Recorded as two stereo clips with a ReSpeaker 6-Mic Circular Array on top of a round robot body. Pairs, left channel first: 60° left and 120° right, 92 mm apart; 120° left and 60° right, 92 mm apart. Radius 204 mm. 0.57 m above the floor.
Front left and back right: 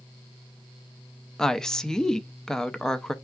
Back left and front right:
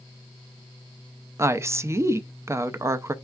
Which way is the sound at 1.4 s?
20° right.